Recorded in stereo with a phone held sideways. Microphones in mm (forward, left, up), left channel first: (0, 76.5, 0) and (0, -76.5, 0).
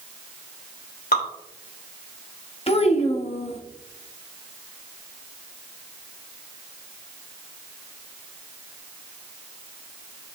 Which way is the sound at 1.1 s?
85° left.